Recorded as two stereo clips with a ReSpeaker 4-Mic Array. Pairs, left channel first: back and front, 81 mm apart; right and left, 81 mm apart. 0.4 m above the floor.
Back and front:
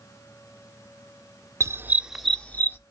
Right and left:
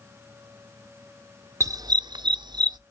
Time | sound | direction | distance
1.6 | a dog barking | 45° left | 0.6 m